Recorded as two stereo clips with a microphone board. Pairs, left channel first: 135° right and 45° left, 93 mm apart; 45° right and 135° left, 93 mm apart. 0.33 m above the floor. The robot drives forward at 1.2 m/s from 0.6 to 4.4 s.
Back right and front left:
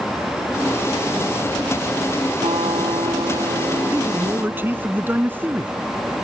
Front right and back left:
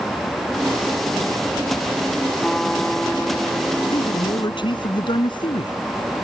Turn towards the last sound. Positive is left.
turn(degrees=-20)